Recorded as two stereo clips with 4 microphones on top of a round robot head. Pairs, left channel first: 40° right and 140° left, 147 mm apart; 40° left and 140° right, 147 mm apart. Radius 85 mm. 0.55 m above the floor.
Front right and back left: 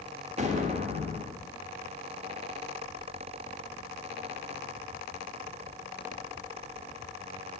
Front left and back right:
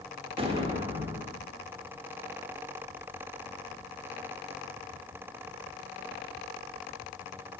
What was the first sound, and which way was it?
An explosion, 175° left.